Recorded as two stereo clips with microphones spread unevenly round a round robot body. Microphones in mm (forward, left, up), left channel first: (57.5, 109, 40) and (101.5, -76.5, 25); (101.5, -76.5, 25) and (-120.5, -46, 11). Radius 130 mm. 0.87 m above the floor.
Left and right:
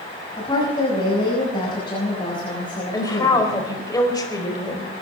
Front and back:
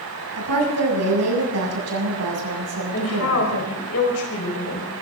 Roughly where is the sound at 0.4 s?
Behind.